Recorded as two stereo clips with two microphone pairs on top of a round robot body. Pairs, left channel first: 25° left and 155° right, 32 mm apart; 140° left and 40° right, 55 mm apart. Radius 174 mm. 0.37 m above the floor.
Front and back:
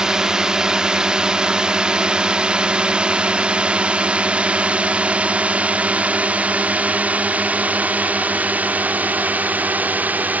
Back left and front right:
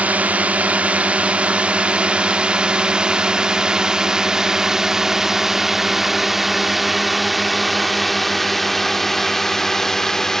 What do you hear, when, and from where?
0.0 s a drone: 80° right; by 10.4 s 145° right